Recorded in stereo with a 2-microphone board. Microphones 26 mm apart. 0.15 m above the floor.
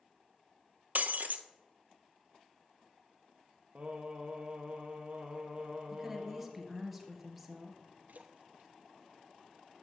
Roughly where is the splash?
Right.